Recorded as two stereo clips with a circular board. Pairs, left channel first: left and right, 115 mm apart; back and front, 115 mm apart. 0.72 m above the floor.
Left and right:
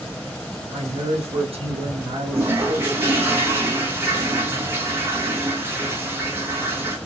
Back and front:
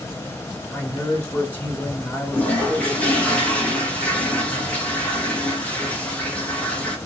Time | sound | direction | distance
0.7 | a man speaking | 105° right | 1.5 m
2.3 | a toilet flushing | 120° right | 1.2 m